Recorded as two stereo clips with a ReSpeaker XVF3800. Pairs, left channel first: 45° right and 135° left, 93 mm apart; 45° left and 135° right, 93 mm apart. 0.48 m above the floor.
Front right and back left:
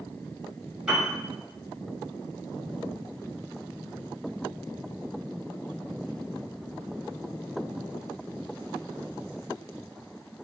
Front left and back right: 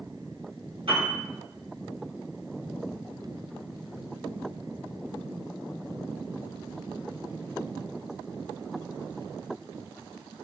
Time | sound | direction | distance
0.9 | a piano | 145° right | 1.2 m